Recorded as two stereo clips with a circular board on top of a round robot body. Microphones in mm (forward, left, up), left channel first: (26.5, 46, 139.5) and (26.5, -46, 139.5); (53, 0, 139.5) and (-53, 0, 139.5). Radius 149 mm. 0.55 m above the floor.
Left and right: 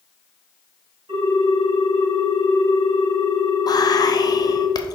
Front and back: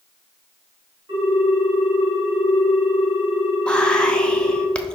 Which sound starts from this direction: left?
Whispering, at 3.7 s.